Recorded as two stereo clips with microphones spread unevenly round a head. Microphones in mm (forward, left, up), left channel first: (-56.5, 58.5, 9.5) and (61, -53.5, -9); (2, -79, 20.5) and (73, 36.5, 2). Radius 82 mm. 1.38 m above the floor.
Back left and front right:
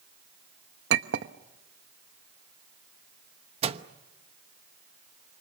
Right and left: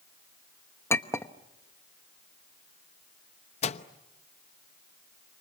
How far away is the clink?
About 1.0 m.